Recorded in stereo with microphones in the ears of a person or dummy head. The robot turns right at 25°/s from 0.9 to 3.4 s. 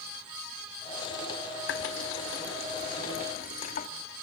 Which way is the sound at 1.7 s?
75° left (ahead or behind).